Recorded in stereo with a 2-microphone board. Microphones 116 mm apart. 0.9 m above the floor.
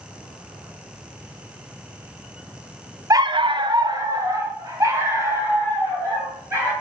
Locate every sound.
3.1 s a dog barking: 30° right (ahead or behind), 0.5 m; by 6.7 s 25° right (ahead or behind), 5 m